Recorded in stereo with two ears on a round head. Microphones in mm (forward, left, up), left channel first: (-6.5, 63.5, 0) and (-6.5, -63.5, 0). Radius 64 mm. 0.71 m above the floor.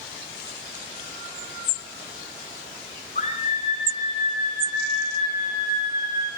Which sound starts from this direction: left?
A scream, at 3.1 s.